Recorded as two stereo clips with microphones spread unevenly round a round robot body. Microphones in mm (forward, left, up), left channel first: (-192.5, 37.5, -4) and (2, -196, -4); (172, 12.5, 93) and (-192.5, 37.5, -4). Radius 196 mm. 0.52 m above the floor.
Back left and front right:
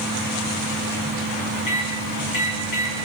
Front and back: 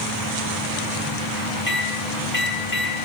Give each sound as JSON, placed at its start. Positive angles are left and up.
{"t": 1.7, "sound": "a microwave", "azimuth_deg": 65, "distance_m": 1.4}